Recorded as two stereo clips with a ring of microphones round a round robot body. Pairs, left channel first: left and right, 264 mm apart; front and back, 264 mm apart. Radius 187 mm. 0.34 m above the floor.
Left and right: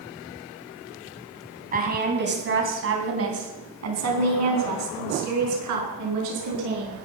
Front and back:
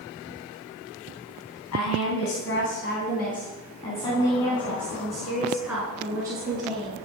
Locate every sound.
1.7 s a woman speaking: 35° right, 3 m; by 7.0 s 100° right, 6 m